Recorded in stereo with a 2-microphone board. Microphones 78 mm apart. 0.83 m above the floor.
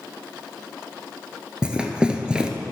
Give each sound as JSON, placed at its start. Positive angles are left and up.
{"t": 1.6, "sound": "running footsteps", "side_deg": -15, "distance_m": 0.9}